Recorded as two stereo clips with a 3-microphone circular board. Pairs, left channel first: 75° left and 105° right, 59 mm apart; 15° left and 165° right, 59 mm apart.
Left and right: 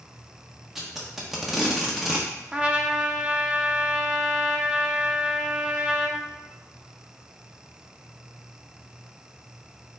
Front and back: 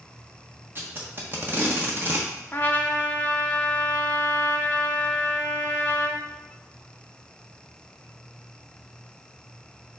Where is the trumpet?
35° right, 0.6 m.